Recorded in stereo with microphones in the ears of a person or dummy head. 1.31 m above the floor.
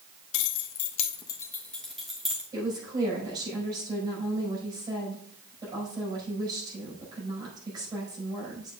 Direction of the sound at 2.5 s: 25° right (ahead or behind).